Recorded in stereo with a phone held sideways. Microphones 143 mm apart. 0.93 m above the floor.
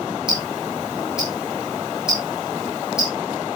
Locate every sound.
0.3 s ticking: 5° right (ahead or behind), 8.5 m